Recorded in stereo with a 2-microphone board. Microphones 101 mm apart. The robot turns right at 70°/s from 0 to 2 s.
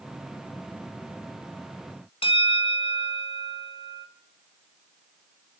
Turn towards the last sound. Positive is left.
turn(degrees=65)  # may be behind; listen again after turning